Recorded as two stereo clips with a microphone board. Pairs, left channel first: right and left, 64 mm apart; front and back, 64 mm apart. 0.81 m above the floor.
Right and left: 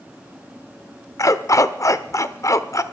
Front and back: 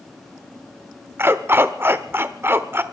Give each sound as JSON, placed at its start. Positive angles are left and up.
{"t": 1.2, "sound": "a dog barking", "azimuth_deg": -125, "distance_m": 0.9}